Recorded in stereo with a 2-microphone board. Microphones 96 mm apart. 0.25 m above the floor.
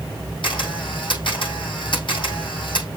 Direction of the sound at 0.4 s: 60° left (ahead or behind).